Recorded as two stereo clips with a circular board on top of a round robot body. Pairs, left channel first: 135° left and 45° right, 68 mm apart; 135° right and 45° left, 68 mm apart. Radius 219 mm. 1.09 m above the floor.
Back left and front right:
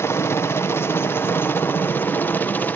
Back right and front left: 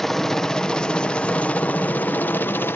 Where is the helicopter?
145° left; by 2.8 s 175° right.